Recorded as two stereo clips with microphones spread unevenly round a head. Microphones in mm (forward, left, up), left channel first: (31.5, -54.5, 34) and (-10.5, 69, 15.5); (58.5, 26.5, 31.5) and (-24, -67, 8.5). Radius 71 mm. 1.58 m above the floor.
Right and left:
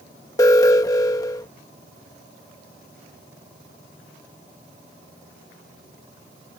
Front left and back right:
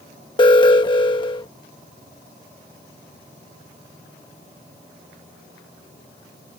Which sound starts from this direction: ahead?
An alarm, at 0.4 s.